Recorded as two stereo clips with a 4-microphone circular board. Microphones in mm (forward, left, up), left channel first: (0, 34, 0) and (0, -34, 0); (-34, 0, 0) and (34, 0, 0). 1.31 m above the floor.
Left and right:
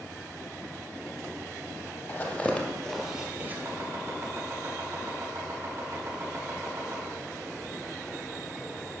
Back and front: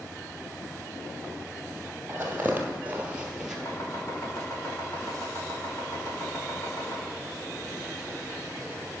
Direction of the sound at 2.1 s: 50° left.